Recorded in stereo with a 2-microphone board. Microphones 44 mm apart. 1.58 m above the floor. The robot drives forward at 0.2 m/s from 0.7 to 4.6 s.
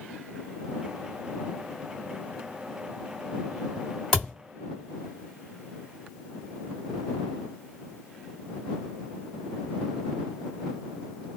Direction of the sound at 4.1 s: 10° left (ahead or behind).